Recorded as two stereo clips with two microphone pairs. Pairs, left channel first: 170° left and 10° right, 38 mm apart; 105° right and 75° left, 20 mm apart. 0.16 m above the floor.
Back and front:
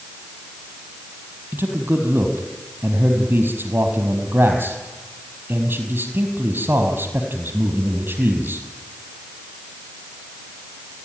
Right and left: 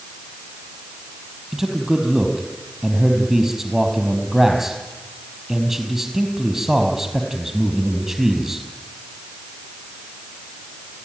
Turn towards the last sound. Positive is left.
turn(degrees=-5)